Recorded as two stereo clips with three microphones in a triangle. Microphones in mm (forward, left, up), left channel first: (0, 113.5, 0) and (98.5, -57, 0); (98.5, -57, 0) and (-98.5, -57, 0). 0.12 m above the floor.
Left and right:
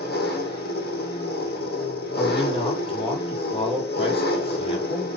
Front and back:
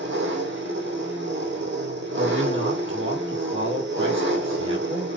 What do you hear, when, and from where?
0.0 s an engine running: 160° left, 2.5 m
2.2 s a man speaking: straight behind, 4 m